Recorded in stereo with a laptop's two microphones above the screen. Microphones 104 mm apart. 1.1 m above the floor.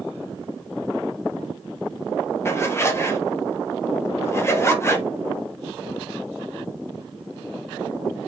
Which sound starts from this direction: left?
A zipper, at 2.5 s.